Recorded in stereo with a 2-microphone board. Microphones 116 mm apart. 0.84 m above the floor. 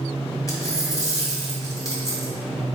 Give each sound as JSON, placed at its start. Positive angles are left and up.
{"t": 0.5, "sound": "a dropped coin", "side_deg": 35, "distance_m": 1.4}